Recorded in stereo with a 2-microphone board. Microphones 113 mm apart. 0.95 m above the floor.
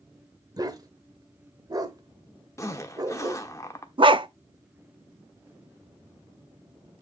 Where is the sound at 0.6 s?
30° right (ahead or behind), 1.0 m.